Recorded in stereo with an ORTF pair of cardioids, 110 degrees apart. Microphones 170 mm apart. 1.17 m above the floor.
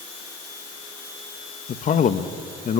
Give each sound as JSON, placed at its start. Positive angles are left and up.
{"t": 1.7, "sound": "a man speaking", "azimuth_deg": 50, "distance_m": 1.4}